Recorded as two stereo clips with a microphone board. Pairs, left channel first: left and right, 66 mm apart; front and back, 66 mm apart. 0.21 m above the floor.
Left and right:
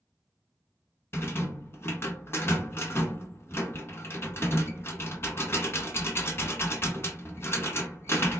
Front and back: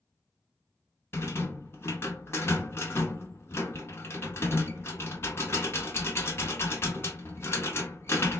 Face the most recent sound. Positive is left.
turn(degrees=45)